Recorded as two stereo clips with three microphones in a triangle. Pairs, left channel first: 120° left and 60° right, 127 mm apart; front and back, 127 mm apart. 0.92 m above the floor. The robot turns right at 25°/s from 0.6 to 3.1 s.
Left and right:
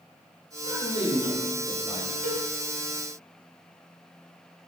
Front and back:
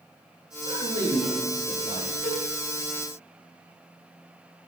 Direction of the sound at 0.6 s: 145° left.